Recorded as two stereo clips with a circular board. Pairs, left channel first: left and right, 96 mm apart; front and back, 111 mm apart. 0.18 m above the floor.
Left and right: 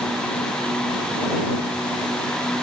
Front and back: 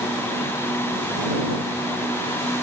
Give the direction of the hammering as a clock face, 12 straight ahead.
I don't hear hammering.